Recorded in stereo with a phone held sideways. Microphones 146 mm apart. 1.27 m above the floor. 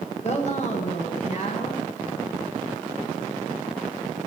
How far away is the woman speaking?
About 0.9 m.